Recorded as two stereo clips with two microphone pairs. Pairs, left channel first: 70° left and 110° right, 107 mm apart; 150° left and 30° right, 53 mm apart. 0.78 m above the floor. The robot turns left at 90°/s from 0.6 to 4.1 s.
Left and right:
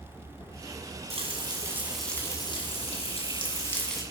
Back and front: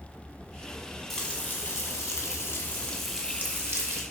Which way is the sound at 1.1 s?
120° right.